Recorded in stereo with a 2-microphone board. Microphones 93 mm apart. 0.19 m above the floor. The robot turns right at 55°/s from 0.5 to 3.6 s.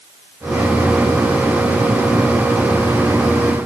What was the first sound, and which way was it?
Only background noise.